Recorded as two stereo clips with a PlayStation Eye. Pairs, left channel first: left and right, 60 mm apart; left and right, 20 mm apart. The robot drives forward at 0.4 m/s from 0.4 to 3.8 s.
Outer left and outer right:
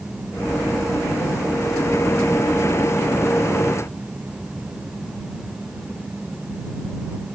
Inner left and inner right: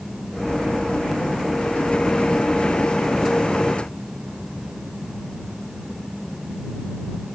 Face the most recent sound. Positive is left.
No sound to turn to.